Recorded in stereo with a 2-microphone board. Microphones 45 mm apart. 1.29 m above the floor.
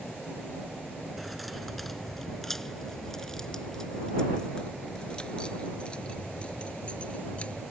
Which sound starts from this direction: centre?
Keys jangling, at 1.2 s.